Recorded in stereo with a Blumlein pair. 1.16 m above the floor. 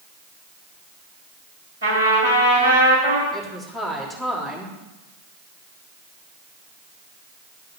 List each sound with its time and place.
1.8 s a trumpet: 65° right, 5 m
3.3 s a woman speaking: straight ahead, 3 m